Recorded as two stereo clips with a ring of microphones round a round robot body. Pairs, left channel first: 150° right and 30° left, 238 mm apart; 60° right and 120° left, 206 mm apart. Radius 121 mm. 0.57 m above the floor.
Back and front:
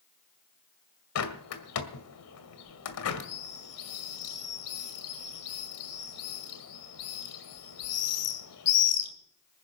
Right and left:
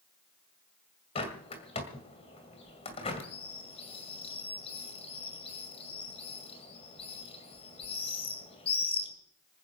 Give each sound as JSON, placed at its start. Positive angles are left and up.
{"t": 1.1, "sound": "a bird", "azimuth_deg": -125, "distance_m": 2.0}